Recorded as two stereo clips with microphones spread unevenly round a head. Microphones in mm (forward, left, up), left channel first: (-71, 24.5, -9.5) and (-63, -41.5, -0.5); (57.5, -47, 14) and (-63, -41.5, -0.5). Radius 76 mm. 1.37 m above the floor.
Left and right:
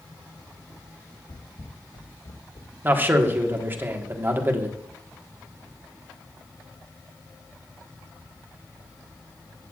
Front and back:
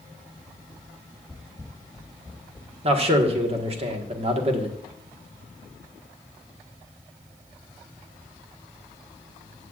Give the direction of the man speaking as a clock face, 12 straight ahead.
5 o'clock.